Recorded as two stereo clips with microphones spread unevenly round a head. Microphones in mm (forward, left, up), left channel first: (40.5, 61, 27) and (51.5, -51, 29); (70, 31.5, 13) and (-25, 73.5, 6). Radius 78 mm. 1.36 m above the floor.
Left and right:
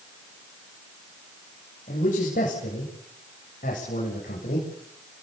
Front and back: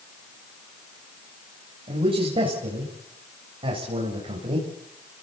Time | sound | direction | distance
1.9 | a man speaking | 125° left | 9 m